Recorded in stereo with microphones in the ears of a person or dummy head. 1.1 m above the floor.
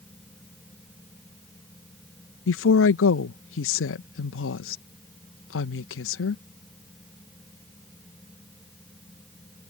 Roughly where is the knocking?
I don't hear knocking.